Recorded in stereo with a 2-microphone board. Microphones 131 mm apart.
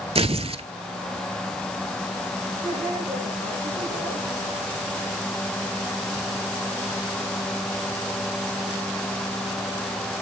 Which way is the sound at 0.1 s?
50° right (ahead or behind).